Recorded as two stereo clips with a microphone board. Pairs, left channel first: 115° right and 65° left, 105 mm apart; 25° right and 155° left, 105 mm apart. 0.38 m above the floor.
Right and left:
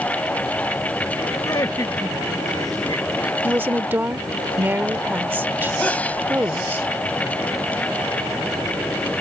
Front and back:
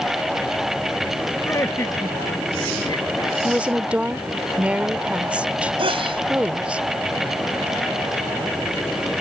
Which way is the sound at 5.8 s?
175° left.